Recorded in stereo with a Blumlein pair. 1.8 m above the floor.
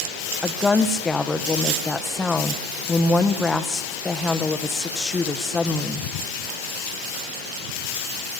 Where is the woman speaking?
15° left, 1.4 m.